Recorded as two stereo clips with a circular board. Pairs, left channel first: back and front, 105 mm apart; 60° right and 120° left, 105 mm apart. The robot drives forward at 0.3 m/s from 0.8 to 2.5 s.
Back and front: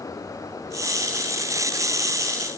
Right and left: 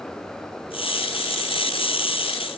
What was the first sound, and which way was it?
Only background noise.